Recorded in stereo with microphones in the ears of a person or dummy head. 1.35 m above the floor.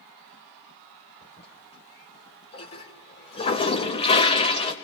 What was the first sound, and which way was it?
A toilet flushing, 35° left (ahead or behind).